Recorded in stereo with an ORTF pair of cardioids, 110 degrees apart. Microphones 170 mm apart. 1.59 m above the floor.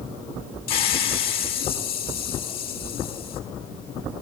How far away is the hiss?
About 4.5 m.